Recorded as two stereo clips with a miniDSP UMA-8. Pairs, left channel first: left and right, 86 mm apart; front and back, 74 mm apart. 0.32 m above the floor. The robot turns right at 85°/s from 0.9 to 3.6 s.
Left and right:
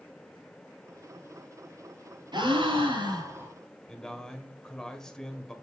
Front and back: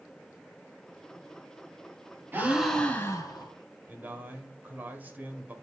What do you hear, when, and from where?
2.3 s a gasp: 120° right, 2 m; by 3.5 s 15° right, 2 m
3.9 s a man speaking: 165° left, 1.5 m